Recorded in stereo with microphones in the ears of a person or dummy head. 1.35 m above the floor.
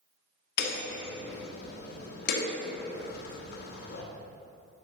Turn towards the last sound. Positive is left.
turn(degrees=60)  # may be behind; listen again after turning